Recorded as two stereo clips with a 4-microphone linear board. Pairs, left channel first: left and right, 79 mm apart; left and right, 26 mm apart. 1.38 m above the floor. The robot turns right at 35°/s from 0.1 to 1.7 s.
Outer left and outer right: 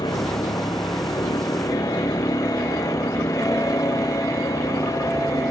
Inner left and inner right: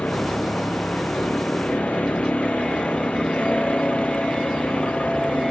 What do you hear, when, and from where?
0.0 s a vehicle: 75° left (ahead or behind); by 5.5 s 50° left (ahead or behind)